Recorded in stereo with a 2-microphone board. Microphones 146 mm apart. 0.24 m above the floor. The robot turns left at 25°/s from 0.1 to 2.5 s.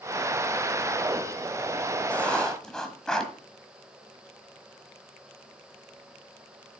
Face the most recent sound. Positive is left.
turn(degrees=5)  # may be behind; listen again after turning